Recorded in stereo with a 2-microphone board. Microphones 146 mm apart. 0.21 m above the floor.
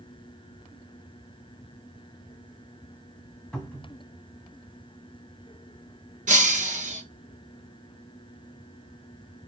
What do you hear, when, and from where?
3.5 s a cupboard door: 5° left (ahead or behind), 1.4 m
6.3 s breaking glass: 65° right (ahead or behind), 1.2 m